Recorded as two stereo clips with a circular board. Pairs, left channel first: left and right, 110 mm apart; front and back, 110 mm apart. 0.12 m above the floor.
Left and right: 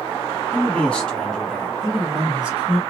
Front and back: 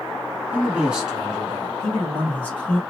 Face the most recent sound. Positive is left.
turn(degrees=-40)